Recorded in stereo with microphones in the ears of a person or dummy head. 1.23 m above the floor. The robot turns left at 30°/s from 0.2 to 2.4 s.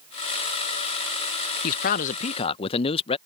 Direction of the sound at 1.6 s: 55° left (ahead or behind).